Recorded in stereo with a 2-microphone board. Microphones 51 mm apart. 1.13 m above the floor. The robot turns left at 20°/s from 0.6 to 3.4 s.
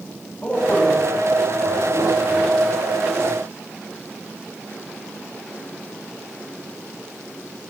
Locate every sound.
0.4 s a man speaking: 25° left (ahead or behind), 7.5 m; by 2.5 s 60° left (ahead or behind), 7.5 m